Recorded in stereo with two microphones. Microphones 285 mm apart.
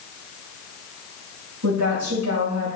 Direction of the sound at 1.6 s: 70° right (ahead or behind).